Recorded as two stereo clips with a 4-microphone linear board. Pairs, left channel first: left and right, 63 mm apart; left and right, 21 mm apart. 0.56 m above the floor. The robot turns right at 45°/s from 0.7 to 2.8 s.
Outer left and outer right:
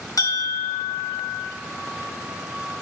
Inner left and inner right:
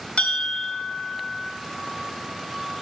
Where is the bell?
105° left, 1.3 m; by 1.5 s 140° left, 1.3 m.